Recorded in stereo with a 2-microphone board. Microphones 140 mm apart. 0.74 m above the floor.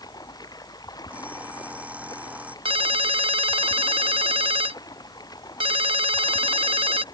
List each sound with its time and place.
0.0 s running water: 30° left (ahead or behind)
1.1 s an alarm clock: 10° right (ahead or behind)
2.6 s a ringtone: 40° right (ahead or behind)